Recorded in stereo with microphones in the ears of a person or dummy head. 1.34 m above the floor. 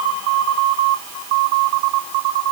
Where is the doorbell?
I don't hear a doorbell.